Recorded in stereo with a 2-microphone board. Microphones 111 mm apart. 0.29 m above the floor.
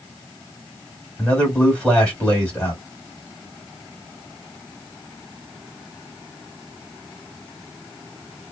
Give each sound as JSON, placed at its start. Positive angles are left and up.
{"t": 1.2, "sound": "a man speaking", "side_deg": 10, "distance_m": 1.7}